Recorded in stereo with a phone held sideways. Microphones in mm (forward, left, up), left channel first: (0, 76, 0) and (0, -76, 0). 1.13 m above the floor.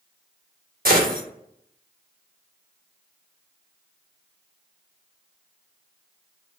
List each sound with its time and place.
0.8 s a gunshot: 75° right (ahead or behind), 0.9 m